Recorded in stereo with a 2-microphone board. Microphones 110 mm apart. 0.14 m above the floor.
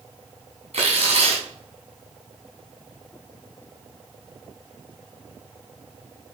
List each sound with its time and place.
0.7 s tearing paper: 65° right (ahead or behind), 3.5 m